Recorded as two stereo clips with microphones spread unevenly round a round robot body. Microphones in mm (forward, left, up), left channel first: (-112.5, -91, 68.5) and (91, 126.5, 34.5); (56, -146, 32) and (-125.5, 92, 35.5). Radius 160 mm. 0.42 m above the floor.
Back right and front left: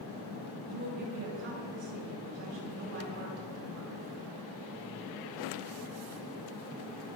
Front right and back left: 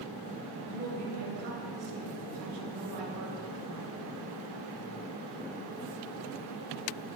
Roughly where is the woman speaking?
Left.